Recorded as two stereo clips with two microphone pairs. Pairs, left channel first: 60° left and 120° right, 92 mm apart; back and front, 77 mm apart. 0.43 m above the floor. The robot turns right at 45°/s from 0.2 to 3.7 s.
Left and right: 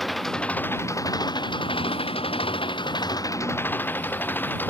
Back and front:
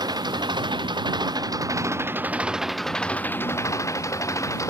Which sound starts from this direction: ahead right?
An engine running, at 0.0 s.